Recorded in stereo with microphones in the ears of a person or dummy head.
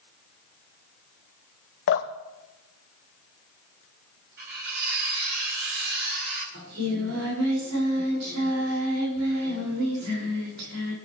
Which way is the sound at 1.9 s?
55° left (ahead or behind).